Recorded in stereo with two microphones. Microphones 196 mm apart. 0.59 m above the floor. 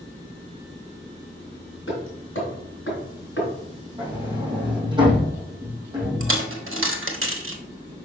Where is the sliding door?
25° right (ahead or behind), 4 m.